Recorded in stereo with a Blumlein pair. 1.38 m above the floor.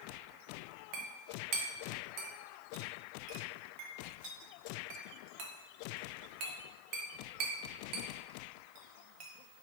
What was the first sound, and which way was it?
A clink, 40° right.